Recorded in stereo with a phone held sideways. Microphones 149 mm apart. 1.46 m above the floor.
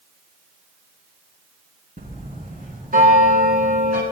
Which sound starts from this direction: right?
A bell, at 2.0 s.